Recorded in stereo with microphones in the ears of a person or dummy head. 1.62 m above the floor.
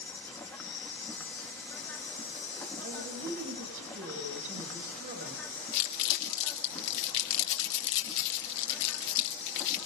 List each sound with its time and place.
0.0 s an insect: 10° left (ahead or behind), 1.3 m
2.8 s a woman speaking: 45° right (ahead or behind), 8.5 m
5.7 s crumpling: 65° left (ahead or behind), 2.5 m